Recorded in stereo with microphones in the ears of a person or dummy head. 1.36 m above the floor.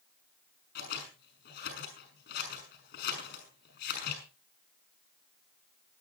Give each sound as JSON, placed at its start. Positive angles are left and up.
{"t": 0.8, "sound": "scissors", "side_deg": 50, "distance_m": 6.5}